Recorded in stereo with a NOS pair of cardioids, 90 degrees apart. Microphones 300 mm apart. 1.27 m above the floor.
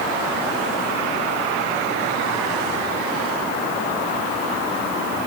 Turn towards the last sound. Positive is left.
No sound to turn to.